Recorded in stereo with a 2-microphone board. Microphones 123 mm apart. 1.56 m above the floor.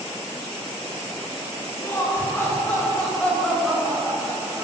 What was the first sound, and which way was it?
Laughter, 25° left (ahead or behind).